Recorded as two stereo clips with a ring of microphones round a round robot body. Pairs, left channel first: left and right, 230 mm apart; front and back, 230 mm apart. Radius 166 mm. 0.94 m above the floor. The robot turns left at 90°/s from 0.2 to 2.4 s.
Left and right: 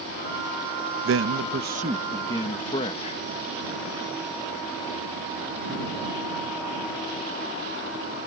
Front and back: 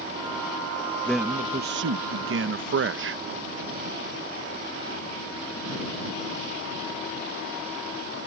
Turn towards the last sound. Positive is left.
turn(degrees=155)